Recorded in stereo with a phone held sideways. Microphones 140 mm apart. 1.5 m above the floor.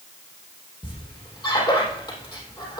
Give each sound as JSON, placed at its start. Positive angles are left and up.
{"t": 0.8, "sound": "a squeak", "side_deg": 30, "distance_m": 3.5}